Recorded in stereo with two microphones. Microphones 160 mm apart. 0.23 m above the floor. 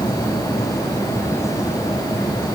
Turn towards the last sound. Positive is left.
No sound to turn to.